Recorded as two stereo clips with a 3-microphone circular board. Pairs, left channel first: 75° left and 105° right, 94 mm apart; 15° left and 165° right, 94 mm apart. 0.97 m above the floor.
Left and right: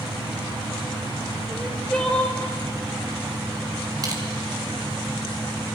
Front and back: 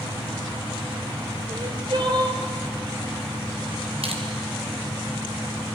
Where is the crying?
155° left, 3 m.